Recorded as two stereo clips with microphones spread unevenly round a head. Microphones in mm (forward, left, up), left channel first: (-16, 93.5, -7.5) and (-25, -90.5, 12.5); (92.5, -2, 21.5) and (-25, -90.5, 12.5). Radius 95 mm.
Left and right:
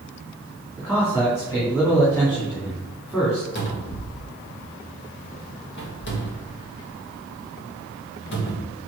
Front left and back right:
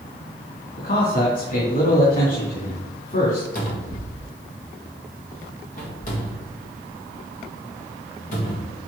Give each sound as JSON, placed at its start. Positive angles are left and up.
{"t": 0.8, "sound": "a man speaking", "azimuth_deg": 10, "distance_m": 2.0}
{"t": 3.5, "sound": "a cupboard door", "azimuth_deg": 75, "distance_m": 1.6}